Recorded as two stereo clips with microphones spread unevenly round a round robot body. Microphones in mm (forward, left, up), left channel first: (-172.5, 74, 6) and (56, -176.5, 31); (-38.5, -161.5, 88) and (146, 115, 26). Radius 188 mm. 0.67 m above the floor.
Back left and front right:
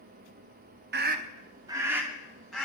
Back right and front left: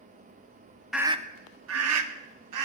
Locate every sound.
0.9 s a scream: 15° right, 0.8 m; by 2.7 s 45° left, 1.9 m